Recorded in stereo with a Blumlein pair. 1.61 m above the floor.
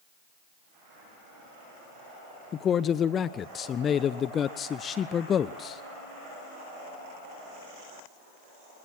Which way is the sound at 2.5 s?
25° left.